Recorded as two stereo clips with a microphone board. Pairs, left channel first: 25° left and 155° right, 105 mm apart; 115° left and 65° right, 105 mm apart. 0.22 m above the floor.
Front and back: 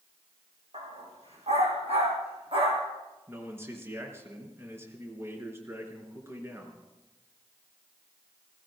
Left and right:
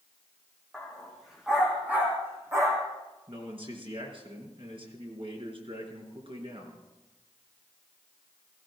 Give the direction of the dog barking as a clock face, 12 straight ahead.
5 o'clock.